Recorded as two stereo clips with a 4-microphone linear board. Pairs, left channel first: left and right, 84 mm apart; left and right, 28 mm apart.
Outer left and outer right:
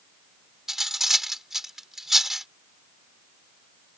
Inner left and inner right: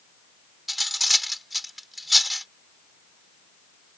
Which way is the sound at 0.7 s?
5° right (ahead or behind).